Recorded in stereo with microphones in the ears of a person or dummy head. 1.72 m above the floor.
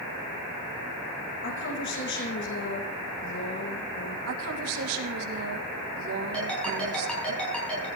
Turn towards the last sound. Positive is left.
turn(degrees=5)  # may be behind; listen again after turning